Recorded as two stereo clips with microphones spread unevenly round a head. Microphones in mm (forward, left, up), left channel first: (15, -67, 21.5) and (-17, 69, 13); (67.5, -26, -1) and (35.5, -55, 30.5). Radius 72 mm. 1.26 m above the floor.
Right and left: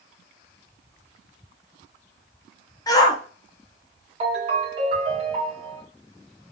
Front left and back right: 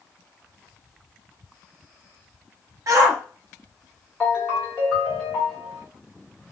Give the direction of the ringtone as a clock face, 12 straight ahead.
7 o'clock.